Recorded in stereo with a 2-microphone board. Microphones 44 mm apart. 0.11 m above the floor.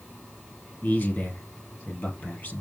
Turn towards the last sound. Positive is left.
turn(degrees=50)  # may be behind; listen again after turning